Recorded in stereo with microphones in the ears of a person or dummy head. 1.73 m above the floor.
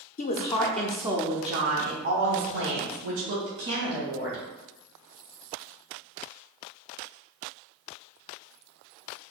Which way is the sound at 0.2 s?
35° left (ahead or behind).